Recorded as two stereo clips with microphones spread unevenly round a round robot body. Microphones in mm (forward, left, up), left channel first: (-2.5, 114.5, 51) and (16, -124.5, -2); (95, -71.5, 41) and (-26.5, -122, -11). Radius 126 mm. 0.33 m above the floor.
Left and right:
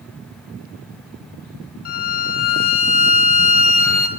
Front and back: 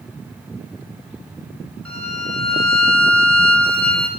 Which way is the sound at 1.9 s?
140° left.